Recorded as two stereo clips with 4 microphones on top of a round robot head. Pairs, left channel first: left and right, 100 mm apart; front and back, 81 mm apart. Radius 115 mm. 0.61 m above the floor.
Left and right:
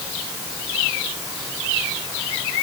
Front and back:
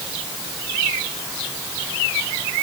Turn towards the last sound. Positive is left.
No sound to turn to.